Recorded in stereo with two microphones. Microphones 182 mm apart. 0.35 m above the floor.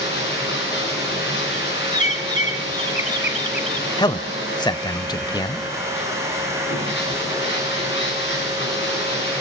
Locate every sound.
0.0 s running water: 85° left, 7 m
1.9 s a bird: 40° left (ahead or behind), 1.2 m
4.0 s a man speaking: 25° left (ahead or behind), 1.1 m